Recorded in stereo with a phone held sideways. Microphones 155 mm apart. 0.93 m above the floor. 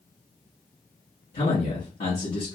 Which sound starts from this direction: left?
A man speaking, at 1.3 s.